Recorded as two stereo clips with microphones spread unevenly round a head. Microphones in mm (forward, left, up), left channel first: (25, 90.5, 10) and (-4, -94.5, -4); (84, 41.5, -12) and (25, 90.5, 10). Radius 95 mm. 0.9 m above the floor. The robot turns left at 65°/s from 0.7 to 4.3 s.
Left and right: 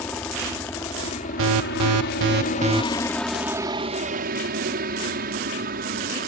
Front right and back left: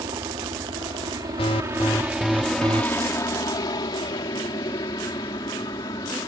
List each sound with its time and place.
0.0 s a helicopter: 160° left; by 6.3 s 75° right
1.4 s an alarm: 75° right; by 2.8 s 170° right